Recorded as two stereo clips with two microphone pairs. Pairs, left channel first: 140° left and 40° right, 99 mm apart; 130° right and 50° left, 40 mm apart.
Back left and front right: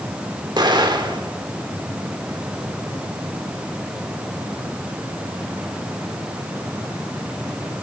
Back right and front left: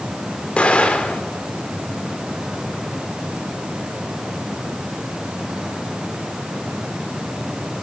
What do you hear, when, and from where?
0.6 s an explosion: 80° right, 1.7 m